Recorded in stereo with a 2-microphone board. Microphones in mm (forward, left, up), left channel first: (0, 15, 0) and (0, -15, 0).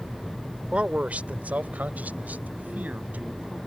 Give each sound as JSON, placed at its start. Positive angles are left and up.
{"t": 0.7, "sound": "a man speaking", "side_deg": -40}